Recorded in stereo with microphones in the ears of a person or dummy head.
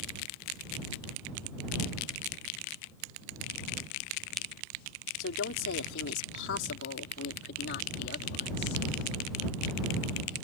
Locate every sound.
5.2 s a woman speaking: 85° left; by 8.8 s 55° left (ahead or behind)